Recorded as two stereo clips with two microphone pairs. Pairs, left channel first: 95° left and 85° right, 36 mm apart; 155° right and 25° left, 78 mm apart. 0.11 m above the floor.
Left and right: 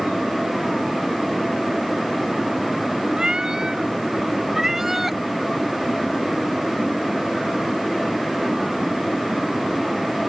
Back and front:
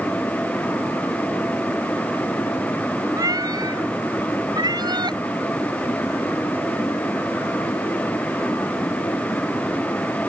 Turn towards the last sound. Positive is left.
turn(degrees=-5)